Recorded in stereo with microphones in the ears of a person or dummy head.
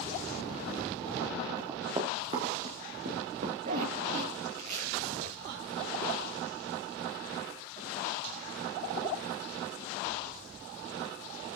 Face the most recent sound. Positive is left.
turn(degrees=-50)  # may be behind; listen again after turning